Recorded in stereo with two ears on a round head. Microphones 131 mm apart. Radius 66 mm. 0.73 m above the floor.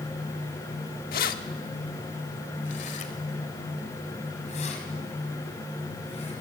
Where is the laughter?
I don't hear laughter.